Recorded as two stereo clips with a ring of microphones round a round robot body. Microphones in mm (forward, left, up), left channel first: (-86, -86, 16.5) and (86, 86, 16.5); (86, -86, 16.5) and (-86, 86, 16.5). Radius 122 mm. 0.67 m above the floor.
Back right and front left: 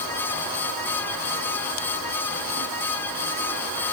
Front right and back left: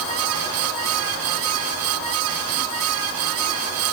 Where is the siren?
No siren in this recording.